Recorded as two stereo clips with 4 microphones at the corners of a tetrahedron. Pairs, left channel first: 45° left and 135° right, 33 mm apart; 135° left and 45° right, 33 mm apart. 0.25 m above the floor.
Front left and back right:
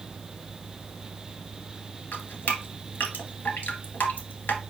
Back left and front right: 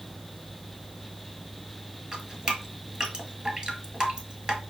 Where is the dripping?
15° left, 1.4 m.